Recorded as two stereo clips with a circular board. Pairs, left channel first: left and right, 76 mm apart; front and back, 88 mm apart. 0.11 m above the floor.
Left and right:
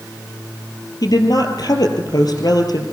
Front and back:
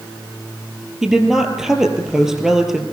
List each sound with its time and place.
1.0 s a woman speaking: 95° left, 3 m